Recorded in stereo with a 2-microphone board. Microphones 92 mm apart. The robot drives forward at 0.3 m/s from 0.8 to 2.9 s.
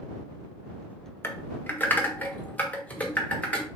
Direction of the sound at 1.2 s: 25° left (ahead or behind).